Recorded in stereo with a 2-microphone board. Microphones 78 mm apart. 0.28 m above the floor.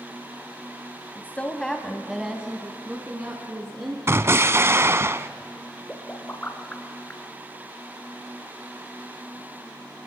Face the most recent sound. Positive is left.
turn(degrees=20)  # may be behind; listen again after turning